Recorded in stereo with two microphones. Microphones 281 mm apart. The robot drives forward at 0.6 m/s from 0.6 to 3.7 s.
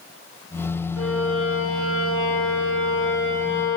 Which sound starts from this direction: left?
A violin, at 1.0 s.